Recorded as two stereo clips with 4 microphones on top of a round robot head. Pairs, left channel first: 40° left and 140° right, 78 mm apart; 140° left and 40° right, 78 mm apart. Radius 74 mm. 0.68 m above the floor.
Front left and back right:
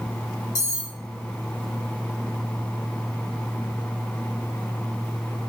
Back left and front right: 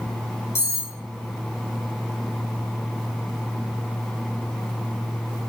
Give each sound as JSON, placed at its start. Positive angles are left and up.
{"t": 0.6, "sound": "cutlery clinking", "azimuth_deg": 85, "distance_m": 1.2}